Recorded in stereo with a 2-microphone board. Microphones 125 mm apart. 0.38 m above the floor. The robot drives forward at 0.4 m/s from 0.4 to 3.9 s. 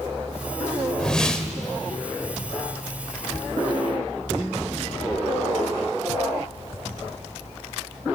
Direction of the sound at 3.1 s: 10° left (ahead or behind).